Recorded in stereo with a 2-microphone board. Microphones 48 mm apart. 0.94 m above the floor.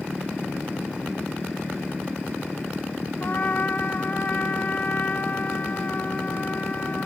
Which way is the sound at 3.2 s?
40° left (ahead or behind).